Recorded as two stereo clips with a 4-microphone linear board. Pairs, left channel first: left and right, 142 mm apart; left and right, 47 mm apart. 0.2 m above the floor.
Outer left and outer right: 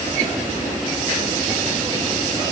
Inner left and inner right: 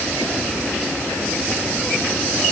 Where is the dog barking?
No dog barking in this recording.